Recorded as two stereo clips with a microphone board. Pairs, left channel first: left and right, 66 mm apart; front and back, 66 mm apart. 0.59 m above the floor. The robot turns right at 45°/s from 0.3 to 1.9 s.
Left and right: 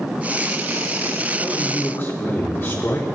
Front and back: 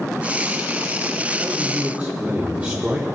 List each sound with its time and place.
1.4 s a man speaking: 100° left, 1.6 m; by 3.0 s 120° left, 1.6 m